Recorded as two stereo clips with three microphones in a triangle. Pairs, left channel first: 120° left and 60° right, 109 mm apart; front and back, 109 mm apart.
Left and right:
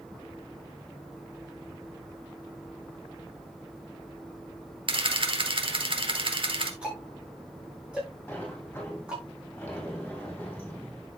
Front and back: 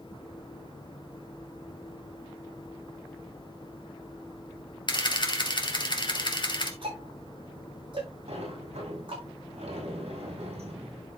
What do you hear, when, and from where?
4.9 s a camera shutter: 35° right, 2 m
6.8 s ticking: 140° right, 6.5 m
8.3 s a sliding door: 165° right, 4.5 m